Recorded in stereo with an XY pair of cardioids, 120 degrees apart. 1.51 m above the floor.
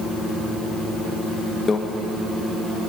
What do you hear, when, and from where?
1.7 s a microwave: 35° left, 1.2 m